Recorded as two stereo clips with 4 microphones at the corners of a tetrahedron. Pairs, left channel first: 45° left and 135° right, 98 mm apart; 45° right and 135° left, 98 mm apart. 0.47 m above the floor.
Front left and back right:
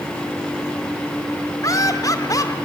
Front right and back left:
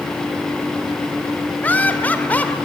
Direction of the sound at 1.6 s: 20° left.